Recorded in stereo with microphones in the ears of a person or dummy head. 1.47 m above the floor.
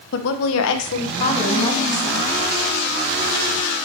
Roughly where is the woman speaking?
Left.